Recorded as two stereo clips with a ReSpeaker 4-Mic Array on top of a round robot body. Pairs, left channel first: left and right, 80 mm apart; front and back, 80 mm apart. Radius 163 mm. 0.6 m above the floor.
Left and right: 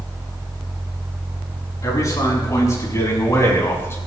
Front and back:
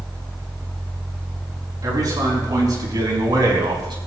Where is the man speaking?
140° left, 7 m; by 4.0 s 150° left, 4.5 m.